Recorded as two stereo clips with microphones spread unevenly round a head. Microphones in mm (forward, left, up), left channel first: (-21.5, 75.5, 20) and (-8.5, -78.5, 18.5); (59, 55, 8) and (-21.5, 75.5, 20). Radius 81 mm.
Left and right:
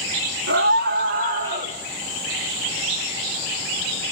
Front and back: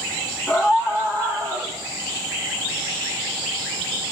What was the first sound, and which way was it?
A scream, 100° right.